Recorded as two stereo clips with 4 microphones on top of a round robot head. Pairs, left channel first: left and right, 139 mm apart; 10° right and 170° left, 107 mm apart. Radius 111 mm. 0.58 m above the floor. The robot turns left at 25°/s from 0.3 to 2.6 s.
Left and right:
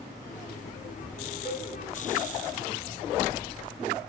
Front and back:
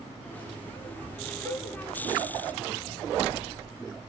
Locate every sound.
1.4 s a cowbell: 135° left, 4.5 m; by 1.7 s 130° left, 4.5 m